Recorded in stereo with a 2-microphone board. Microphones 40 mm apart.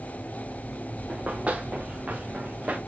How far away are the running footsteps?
About 1.8 m.